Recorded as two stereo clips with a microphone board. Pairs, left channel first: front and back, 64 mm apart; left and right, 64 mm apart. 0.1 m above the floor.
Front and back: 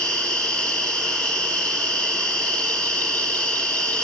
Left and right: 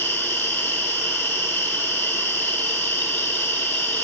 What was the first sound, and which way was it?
An insect, 65° left.